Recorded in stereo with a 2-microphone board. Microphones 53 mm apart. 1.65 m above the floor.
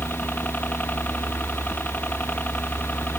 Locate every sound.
0.0 s a helicopter: 30° left (ahead or behind)